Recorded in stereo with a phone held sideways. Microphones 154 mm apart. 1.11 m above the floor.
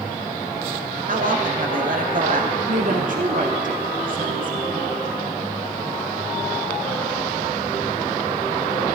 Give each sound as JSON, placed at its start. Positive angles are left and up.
{"t": 1.1, "sound": "a man speaking", "side_deg": -60, "distance_m": 1.3}
{"t": 2.7, "sound": "a woman speaking", "side_deg": -60, "distance_m": 1.2}